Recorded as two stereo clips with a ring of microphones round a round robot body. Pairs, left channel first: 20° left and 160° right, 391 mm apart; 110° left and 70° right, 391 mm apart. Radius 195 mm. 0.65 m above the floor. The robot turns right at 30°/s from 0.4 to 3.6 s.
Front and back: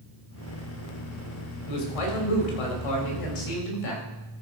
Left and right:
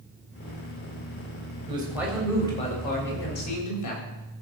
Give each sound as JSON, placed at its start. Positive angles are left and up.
{"t": 1.7, "sound": "a man speaking", "azimuth_deg": 10, "distance_m": 3.5}